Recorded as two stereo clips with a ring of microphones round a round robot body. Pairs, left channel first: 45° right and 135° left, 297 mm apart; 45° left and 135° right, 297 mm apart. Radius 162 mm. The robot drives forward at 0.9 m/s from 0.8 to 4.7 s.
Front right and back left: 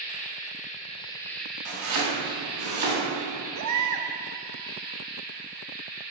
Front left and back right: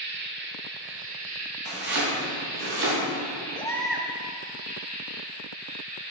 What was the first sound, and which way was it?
An insect, 100° right.